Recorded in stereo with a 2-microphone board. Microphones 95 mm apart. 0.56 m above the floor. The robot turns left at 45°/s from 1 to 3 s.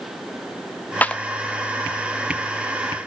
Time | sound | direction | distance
1.0 | a clap | 15° left (ahead or behind) | 0.5 m